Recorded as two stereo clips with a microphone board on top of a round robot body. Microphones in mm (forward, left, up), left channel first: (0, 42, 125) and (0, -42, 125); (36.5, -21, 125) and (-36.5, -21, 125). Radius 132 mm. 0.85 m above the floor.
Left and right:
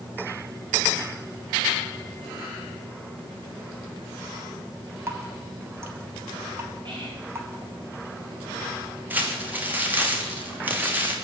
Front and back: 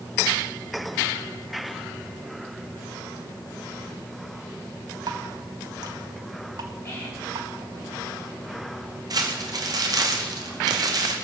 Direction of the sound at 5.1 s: 150° right.